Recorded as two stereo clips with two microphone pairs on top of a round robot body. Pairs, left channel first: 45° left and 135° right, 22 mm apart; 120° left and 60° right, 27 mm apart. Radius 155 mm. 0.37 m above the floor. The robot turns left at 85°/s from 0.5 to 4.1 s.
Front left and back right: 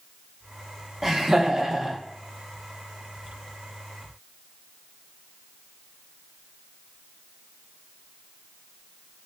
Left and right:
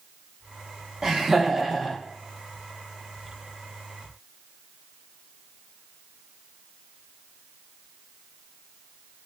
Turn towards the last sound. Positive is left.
turn(degrees=0)